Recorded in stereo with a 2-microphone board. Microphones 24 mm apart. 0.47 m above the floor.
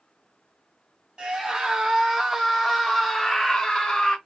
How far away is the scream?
About 1.3 m.